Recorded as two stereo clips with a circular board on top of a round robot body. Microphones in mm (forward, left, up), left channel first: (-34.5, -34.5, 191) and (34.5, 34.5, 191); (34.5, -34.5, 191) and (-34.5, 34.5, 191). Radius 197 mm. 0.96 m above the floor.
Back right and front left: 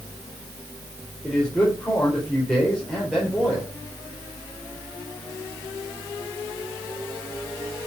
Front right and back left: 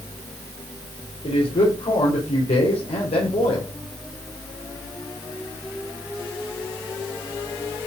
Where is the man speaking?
50° right, 4 m.